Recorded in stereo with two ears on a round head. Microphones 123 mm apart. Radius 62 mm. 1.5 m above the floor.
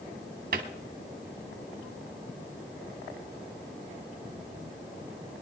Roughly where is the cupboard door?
Right.